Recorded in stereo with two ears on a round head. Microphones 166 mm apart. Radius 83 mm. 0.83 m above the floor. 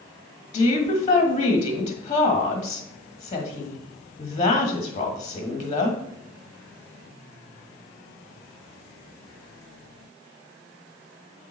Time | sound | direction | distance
0.5 | a woman speaking | 35° left (ahead or behind) | 1.5 m